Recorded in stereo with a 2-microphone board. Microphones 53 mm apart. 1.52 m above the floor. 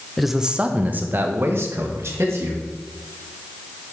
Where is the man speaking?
Centre (ahead or behind), 0.6 m; by 2.6 s 60° right (ahead or behind), 1.7 m.